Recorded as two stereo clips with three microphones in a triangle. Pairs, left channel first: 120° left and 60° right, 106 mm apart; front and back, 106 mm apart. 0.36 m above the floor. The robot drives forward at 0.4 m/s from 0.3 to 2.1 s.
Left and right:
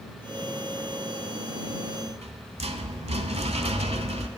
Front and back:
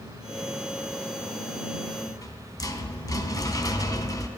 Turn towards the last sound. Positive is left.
turn(degrees=-50)